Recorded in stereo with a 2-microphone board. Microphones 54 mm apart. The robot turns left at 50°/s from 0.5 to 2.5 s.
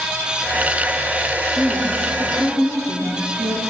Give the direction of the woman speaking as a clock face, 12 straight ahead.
1 o'clock.